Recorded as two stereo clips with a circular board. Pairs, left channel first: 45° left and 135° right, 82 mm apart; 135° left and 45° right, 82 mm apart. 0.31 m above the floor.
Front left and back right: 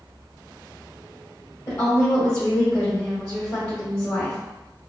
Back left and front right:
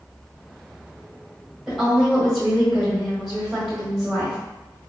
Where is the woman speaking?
25° left, 1.4 m.